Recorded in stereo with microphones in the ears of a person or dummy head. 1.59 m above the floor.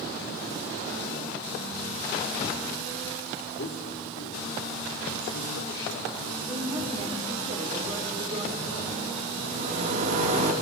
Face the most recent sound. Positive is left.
turn(degrees=-40)  # may be behind; listen again after turning